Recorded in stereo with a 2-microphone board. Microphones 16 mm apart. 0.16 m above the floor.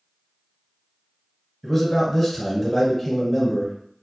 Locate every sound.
1.6 s a man speaking: 5° left (ahead or behind), 1.4 m